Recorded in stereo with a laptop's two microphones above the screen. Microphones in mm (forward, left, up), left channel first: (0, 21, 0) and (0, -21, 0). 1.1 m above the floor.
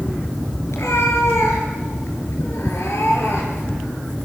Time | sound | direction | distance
0.7 | a cat meowing | 80° left | 5.5 m